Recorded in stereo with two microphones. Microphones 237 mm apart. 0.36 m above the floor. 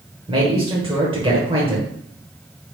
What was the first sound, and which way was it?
A man speaking, 20° right (ahead or behind).